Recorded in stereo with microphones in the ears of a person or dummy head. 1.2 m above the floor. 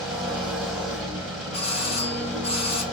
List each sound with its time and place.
0.0 s an engine running: centre (ahead or behind), 3.5 m
1.5 s a doorbell: 35° left (ahead or behind), 1.5 m